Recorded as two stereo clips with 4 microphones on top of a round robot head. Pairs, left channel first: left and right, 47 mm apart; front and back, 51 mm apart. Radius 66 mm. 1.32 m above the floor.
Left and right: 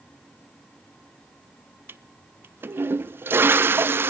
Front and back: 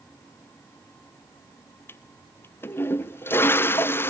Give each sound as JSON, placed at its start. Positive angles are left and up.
{"t": 1.9, "sound": "a toilet flushing", "azimuth_deg": -50, "distance_m": 0.7}